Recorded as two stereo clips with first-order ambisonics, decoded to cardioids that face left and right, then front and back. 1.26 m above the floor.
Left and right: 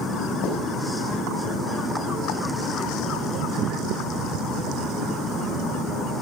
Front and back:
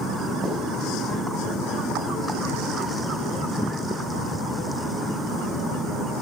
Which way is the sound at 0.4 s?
115° left.